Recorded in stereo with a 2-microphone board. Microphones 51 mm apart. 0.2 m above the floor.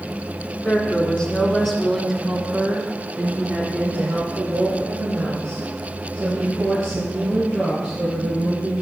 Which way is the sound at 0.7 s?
30° left (ahead or behind).